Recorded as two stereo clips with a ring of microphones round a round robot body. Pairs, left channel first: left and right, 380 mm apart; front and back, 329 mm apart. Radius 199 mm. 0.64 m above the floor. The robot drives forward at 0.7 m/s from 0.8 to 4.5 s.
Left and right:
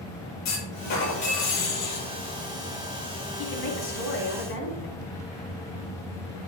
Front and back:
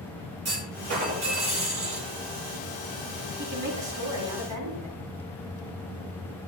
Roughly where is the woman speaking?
Behind left.